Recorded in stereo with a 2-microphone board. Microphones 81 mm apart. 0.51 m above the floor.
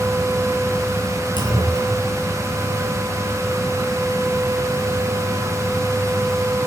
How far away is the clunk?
About 7 m.